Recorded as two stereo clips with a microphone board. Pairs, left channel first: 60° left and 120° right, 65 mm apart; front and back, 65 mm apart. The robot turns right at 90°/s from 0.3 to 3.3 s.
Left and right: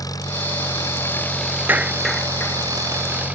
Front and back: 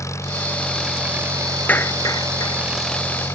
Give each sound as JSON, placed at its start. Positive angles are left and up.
{"t": 0.0, "sound": "an engine running", "azimuth_deg": 40}
{"t": 1.7, "sound": "a clap", "azimuth_deg": -65}